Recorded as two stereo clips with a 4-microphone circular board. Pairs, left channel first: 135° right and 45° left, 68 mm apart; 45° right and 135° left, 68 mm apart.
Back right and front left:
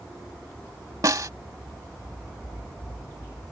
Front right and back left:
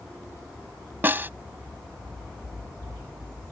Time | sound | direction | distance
1.0 | a snare drum | 75° left | ?